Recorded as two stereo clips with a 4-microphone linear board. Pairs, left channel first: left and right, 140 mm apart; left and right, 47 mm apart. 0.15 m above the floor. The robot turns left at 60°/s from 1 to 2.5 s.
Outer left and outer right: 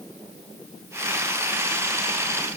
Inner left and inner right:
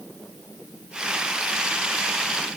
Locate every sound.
Only background noise.